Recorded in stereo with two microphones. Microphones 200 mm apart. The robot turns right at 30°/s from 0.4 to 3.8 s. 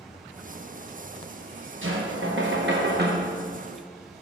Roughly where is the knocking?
Right.